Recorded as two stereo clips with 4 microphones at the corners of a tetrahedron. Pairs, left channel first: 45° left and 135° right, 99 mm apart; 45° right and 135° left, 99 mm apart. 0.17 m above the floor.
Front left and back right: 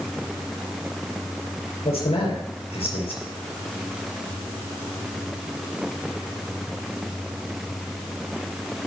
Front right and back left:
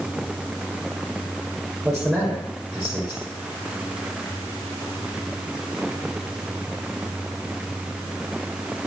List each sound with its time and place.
1.9 s a man speaking: 60° left, 5.5 m